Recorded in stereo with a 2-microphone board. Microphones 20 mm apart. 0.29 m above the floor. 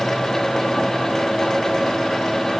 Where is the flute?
No flute in this recording.